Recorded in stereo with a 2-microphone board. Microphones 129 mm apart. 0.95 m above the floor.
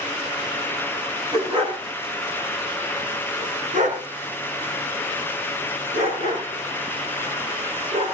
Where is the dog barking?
40° right (ahead or behind), 5 m; by 8.1 s 65° right (ahead or behind), 8.5 m.